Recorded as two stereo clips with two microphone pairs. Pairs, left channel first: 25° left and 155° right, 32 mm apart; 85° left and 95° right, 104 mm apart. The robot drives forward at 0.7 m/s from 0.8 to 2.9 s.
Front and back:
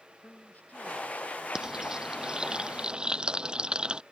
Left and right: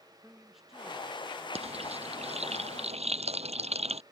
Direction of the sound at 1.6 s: 80° right.